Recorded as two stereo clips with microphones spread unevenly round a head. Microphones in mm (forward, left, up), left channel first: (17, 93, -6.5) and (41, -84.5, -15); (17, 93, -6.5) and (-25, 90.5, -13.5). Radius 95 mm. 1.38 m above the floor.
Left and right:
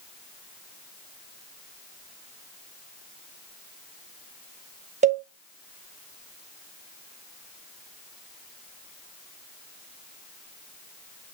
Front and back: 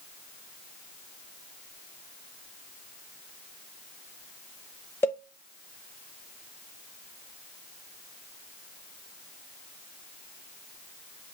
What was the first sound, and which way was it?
A cowbell, 30° right.